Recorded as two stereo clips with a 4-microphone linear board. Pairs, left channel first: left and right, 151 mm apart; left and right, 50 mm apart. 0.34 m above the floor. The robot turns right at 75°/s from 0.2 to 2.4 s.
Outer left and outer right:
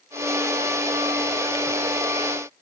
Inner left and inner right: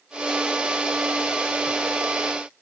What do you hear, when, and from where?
Only background noise.